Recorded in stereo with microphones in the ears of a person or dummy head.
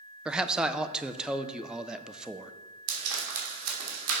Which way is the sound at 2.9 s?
85° right.